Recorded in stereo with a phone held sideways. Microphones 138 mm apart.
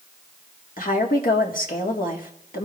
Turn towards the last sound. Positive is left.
turn(degrees=80)